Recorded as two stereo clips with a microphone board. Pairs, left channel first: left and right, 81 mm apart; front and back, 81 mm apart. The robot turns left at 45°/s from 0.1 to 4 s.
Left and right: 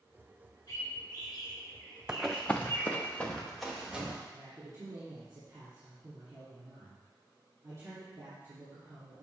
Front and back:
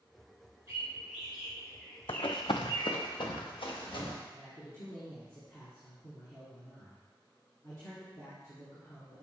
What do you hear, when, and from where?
0.7 s a bird: 125° left, 3.5 m; by 3.0 s 15° left, 3.5 m
2.1 s running footsteps: 10° right, 0.6 m; by 4.2 s 15° right, 2.5 m
4.3 s a man speaking: 50° right, 2.5 m